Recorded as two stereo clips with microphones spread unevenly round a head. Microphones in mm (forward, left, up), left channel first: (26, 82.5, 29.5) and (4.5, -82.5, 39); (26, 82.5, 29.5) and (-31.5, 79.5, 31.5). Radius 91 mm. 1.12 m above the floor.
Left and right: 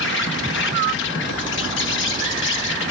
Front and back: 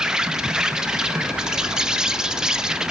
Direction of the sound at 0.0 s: 105° left.